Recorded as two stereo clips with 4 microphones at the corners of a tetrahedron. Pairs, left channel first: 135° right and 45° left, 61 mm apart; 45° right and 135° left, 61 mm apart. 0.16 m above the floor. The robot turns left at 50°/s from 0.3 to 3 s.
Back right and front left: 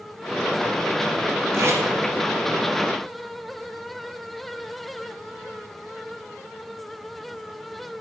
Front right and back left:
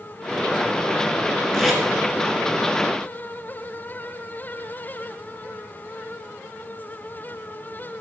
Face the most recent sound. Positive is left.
turn(degrees=-15)